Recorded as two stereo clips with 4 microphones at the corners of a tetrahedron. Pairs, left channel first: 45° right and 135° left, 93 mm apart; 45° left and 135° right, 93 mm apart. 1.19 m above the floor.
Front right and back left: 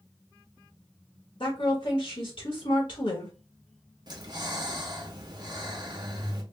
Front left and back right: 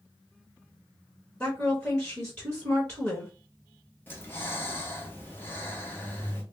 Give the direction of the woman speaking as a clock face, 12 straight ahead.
1 o'clock.